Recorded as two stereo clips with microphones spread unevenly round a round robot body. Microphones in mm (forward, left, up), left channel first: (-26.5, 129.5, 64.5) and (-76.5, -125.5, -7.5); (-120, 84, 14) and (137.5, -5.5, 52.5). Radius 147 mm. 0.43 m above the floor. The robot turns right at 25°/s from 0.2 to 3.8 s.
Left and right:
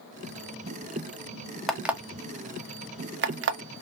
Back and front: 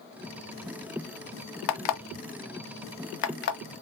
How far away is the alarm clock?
About 0.6 m.